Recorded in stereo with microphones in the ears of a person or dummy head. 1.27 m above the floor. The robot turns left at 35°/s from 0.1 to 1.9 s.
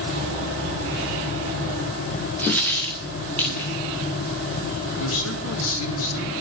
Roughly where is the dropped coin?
Centre.